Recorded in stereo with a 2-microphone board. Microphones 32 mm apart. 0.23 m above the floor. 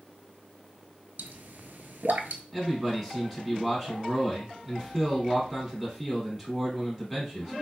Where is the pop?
75° right (ahead or behind), 0.6 m.